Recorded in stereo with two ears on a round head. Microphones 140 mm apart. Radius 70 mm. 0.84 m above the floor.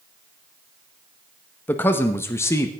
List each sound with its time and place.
1.7 s a man speaking: 15° left (ahead or behind), 1.2 m